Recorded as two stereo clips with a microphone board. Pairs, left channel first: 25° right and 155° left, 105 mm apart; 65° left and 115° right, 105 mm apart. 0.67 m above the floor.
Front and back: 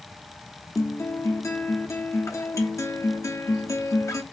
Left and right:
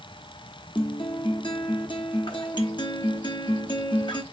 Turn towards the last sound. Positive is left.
turn(degrees=35)